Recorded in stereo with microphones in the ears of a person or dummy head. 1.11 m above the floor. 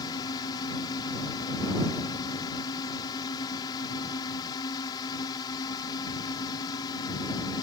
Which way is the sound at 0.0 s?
25° left (ahead or behind).